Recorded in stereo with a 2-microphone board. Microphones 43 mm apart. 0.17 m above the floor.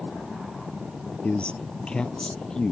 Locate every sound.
1.2 s a man speaking: 30° left (ahead or behind); by 2.7 s 20° left (ahead or behind)